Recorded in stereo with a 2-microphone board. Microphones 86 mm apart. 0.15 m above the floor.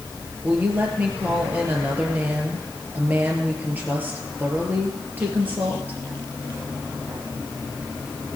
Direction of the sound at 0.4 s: 20° right (ahead or behind).